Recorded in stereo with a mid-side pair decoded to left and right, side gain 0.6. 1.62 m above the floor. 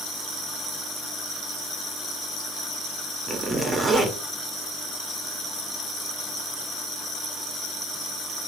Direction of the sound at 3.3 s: 25° right.